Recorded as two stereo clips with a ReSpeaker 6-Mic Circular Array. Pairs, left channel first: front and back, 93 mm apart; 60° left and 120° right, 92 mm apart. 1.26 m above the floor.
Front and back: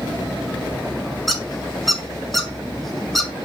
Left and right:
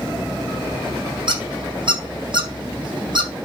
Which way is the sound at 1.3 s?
90° right.